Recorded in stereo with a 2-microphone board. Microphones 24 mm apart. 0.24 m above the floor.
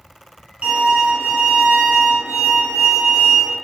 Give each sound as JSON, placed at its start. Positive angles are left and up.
{"t": 0.6, "sound": "a violin", "side_deg": -55, "distance_m": 0.7}